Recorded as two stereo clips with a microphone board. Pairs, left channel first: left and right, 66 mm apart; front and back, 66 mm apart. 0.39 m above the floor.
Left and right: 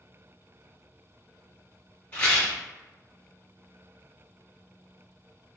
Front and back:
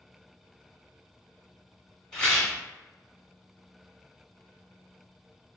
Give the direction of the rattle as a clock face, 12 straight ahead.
10 o'clock.